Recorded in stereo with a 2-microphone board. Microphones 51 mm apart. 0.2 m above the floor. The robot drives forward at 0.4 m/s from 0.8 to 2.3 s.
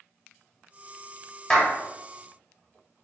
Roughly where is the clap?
Centre.